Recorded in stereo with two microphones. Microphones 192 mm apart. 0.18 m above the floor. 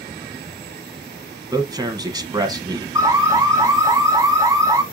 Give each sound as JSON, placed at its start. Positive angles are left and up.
{"t": 1.5, "sound": "a man speaking", "side_deg": -20, "distance_m": 1.2}
{"t": 3.0, "sound": "an alarm", "side_deg": -15, "distance_m": 0.8}